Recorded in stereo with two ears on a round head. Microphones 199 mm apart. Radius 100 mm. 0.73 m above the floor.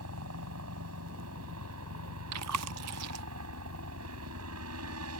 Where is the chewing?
80° right.